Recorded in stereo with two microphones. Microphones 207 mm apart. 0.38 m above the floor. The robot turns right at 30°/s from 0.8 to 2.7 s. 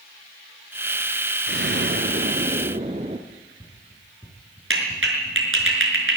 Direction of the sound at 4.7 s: 80° right.